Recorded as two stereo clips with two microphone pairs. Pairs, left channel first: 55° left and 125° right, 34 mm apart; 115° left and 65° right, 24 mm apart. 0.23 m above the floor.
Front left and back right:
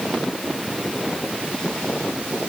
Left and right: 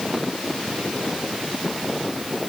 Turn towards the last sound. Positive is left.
No sound to turn to.